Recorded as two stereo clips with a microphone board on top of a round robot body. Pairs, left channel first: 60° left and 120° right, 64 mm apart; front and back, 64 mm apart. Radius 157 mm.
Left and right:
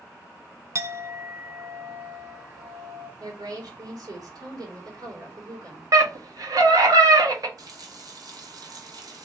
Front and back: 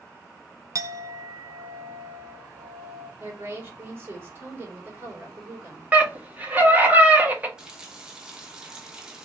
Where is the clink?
155° right, 0.8 m.